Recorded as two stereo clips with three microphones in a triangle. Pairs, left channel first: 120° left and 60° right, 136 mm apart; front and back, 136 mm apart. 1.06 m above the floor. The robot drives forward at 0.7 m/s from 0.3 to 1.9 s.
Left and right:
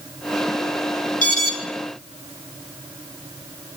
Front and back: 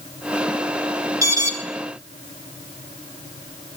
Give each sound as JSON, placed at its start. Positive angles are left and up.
{"t": 1.2, "sound": "an alarm", "azimuth_deg": 115, "distance_m": 3.0}